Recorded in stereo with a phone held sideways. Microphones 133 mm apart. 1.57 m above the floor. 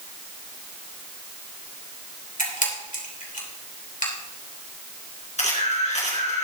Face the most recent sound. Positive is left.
turn(degrees=60)  # may be behind; listen again after turning